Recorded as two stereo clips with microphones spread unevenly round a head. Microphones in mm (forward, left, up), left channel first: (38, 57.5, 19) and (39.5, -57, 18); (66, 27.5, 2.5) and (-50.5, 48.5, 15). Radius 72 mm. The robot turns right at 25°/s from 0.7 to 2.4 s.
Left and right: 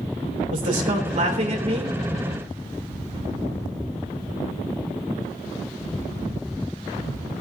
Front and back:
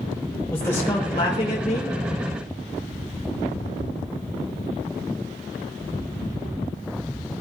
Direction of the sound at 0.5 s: 85° right.